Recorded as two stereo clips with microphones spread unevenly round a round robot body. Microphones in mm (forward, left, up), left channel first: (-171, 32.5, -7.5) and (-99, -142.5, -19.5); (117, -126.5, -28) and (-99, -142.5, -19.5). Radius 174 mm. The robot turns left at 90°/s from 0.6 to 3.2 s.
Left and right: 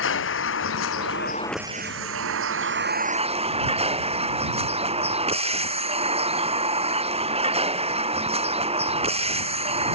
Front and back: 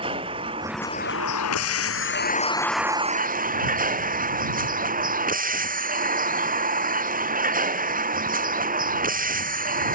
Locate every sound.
0.0 s a vehicle: 110° left; by 9.9 s 125° right